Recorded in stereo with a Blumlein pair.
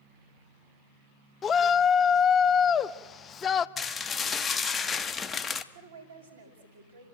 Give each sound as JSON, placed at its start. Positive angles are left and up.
{"t": 1.4, "sound": "a shout", "azimuth_deg": 25, "distance_m": 0.8}
{"t": 3.8, "sound": "dishes clattering", "azimuth_deg": 15, "distance_m": 0.9}
{"t": 5.7, "sound": "a woman speaking", "azimuth_deg": -65, "distance_m": 5.5}